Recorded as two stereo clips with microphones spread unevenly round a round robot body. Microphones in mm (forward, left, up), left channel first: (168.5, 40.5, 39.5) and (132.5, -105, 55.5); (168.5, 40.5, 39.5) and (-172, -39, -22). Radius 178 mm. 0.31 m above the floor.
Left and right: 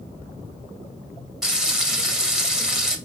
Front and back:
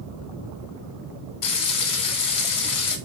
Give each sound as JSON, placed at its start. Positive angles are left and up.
{"t": 1.4, "sound": "frying", "azimuth_deg": -15, "distance_m": 2.5}